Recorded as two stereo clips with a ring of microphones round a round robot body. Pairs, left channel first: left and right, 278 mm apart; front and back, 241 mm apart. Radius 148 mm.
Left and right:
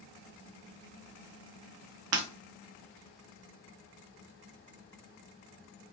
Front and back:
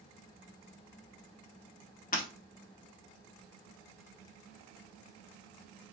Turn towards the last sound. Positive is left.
turn(degrees=-60)